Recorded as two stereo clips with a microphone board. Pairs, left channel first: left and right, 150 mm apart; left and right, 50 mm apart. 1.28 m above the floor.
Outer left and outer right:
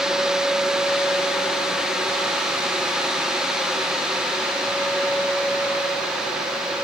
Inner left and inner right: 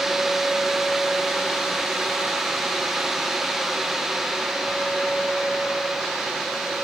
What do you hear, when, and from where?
Only background noise.